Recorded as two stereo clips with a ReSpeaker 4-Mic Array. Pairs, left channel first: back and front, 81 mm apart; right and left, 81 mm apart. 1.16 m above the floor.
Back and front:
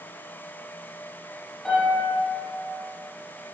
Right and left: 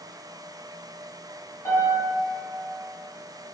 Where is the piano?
95° right, 0.9 m.